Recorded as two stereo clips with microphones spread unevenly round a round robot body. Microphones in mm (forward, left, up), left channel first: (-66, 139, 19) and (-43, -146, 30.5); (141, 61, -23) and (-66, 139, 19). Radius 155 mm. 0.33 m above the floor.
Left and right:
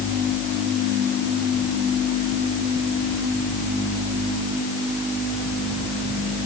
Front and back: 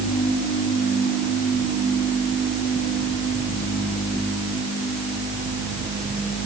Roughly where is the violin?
No violin in this recording.